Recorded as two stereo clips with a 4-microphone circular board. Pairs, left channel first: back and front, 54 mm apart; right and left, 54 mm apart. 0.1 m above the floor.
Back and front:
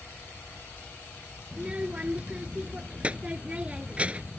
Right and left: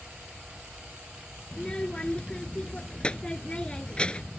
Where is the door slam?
I don't hear a door slam.